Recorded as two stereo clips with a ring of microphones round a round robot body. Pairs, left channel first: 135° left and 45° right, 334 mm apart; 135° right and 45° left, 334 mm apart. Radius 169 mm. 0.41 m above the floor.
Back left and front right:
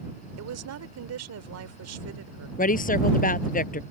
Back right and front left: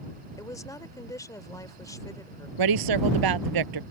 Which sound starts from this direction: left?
A woman speaking, at 2.6 s.